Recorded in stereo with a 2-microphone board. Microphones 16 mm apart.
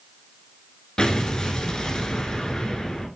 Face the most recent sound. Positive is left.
turn(degrees=40)  # may be behind; listen again after turning